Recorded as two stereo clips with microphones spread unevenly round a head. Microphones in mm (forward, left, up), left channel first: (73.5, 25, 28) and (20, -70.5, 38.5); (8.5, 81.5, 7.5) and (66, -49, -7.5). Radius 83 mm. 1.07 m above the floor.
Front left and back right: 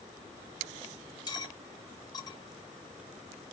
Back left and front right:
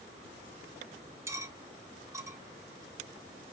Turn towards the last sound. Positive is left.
turn(degrees=5)